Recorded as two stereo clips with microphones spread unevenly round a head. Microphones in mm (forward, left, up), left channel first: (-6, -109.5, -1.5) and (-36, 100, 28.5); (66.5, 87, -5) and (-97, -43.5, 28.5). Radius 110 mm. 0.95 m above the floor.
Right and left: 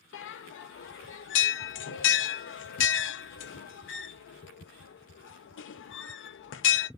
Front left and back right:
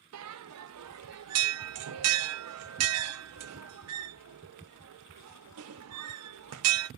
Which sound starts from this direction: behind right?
A bell, at 0.1 s.